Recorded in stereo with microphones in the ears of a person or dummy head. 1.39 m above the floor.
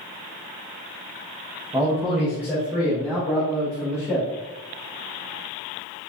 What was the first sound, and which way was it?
A man speaking, 15° right (ahead or behind).